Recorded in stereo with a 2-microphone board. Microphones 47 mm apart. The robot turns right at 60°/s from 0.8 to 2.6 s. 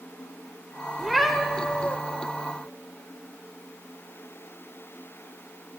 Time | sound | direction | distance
1.0 | a cat meowing | 10° right | 0.7 m